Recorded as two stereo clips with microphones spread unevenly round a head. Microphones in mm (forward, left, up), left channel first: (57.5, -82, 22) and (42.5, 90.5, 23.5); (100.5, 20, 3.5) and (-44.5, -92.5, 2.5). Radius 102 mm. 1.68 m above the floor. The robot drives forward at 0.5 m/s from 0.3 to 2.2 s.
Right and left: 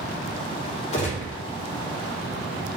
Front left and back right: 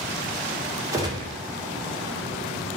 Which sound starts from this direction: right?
A gunshot, at 0.9 s.